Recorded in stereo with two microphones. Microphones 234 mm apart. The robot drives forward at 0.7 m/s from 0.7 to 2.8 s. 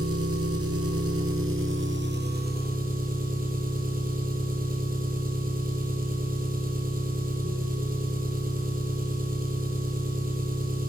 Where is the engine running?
75° right (ahead or behind), 1.1 m; by 10.9 s 40° right (ahead or behind), 1.8 m.